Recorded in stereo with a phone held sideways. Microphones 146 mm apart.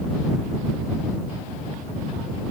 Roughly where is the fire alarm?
I don't hear a fire alarm.